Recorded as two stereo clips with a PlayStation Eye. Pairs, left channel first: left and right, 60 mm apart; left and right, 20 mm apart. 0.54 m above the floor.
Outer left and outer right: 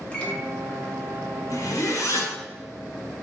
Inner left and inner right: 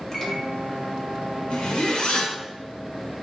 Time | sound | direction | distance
0.1 | a microwave | 20° left (ahead or behind) | 0.8 m
1.5 | a zipper | 60° left (ahead or behind) | 1.0 m